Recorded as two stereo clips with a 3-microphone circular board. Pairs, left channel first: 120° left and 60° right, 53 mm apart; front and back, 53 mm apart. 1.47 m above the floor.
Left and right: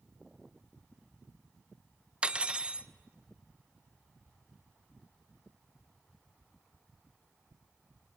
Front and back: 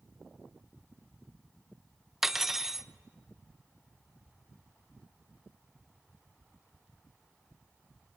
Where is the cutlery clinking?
100° right, 0.6 m.